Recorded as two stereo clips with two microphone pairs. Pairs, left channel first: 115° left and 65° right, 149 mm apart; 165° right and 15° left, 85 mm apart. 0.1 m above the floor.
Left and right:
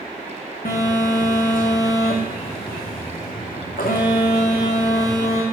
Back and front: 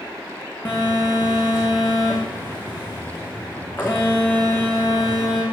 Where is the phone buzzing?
130° left, 3 m.